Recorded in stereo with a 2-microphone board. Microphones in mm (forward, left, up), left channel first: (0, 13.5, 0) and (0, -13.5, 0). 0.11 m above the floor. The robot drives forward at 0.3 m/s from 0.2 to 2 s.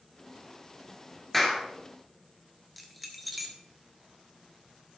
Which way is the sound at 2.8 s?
Centre (ahead or behind).